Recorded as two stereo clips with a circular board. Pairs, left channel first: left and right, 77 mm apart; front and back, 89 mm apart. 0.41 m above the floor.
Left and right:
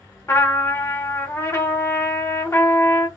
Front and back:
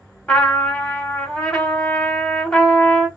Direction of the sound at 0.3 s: 70° left.